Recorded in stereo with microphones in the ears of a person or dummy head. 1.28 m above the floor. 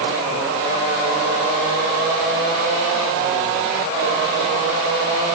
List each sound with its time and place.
Only background noise.